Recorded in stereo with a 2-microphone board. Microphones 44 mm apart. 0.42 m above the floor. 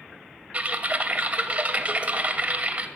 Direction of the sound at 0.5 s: 35° right (ahead or behind).